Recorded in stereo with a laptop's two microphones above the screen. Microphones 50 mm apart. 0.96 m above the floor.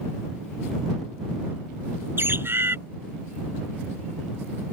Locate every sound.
2.2 s a bird: 50° right (ahead or behind)